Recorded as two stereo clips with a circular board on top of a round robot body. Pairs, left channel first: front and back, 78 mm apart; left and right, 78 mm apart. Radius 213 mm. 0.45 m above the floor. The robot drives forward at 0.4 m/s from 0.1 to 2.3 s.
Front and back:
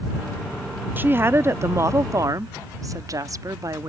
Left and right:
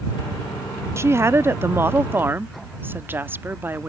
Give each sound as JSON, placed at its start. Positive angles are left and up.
{"t": 1.0, "sound": "a woman speaking", "azimuth_deg": -125}